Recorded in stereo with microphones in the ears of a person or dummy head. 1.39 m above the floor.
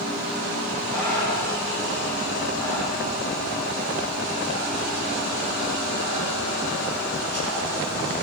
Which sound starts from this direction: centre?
Breathing, at 0.9 s.